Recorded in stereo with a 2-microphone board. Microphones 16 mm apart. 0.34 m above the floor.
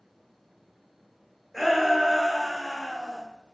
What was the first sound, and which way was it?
A shout, 10° left (ahead or behind).